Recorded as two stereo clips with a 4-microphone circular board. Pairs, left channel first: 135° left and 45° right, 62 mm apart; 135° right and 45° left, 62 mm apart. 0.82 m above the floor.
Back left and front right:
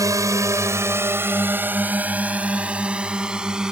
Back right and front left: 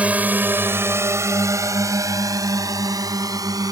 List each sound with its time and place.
0.0 s a drone: 25° right; by 3.7 s 35° left